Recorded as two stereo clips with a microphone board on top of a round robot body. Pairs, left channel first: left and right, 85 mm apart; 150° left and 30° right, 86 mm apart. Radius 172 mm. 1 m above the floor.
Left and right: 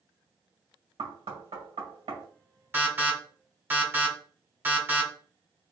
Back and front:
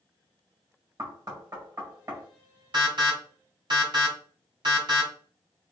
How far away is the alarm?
About 2.5 m.